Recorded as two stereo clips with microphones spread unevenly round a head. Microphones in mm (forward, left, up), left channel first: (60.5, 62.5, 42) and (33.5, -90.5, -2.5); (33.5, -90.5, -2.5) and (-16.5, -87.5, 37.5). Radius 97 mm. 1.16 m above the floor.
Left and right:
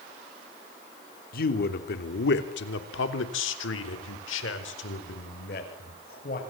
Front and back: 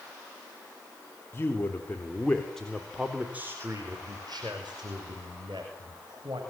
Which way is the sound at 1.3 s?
50° left.